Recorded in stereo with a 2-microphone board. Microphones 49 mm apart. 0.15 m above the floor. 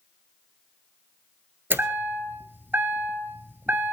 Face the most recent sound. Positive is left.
turn(degrees=-50)  # may be behind; listen again after turning